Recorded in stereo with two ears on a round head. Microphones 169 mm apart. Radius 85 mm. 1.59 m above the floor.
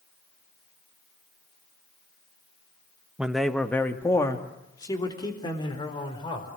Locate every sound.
3.2 s a man speaking: 5° right (ahead or behind), 1.3 m; by 6.5 s 25° left (ahead or behind), 5 m